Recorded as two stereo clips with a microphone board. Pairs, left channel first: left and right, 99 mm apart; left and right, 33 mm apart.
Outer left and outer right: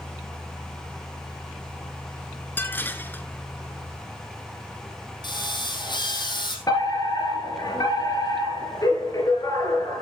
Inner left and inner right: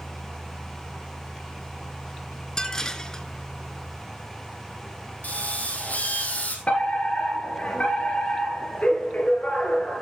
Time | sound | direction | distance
2.6 | dishes clattering | 20° left (ahead or behind) | 0.9 m
5.2 | a drill | 50° left (ahead or behind) | 2.5 m
6.7 | a fire alarm | 40° left (ahead or behind) | 3 m